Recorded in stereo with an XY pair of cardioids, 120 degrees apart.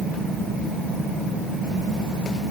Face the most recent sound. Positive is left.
No sound to turn to.